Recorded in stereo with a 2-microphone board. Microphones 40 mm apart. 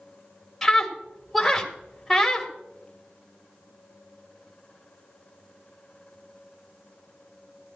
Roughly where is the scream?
Centre.